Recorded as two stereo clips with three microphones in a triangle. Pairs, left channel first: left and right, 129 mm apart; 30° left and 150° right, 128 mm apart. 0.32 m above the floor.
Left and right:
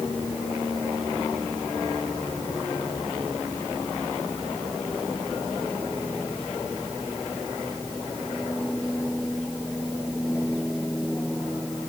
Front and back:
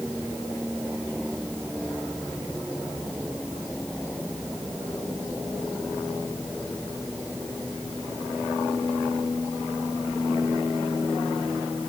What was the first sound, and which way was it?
Only background noise.